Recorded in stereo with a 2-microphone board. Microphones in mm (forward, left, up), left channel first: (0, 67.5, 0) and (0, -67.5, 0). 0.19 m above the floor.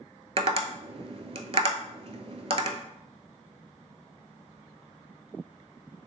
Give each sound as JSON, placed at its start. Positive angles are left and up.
{"t": 0.4, "sound": "tapping", "side_deg": -45, "distance_m": 0.5}